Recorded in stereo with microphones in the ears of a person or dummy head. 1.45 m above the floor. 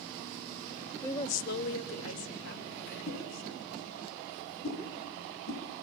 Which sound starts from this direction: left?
A whoosh, at 3.1 s.